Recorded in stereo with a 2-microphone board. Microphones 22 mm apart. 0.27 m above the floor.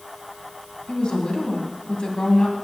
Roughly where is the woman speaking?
Left.